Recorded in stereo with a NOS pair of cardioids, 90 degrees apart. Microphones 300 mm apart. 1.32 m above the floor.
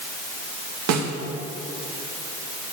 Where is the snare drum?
65° right, 2 m.